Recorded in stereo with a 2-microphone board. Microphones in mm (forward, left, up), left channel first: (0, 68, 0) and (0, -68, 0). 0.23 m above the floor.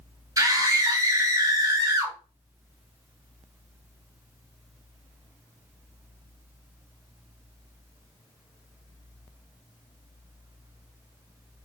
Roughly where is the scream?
Right.